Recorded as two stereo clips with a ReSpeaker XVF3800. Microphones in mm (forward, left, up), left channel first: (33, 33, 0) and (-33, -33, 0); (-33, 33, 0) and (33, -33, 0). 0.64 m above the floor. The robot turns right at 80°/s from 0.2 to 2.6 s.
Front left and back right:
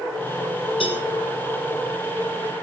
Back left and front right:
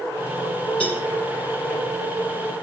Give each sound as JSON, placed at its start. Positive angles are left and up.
{"t": 0.8, "sound": "a cowbell", "azimuth_deg": 60, "distance_m": 5.0}